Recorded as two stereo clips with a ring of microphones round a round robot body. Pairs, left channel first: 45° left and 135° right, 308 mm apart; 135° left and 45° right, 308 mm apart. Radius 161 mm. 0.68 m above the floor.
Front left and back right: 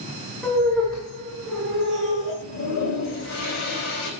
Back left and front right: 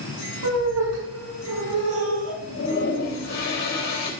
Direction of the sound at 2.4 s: 85° left.